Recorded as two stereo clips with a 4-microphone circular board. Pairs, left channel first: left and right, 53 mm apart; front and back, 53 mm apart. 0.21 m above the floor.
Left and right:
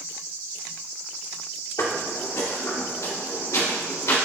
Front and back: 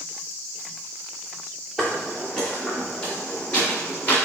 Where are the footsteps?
85° left, 1.9 m; by 4.2 s 65° left, 3.5 m.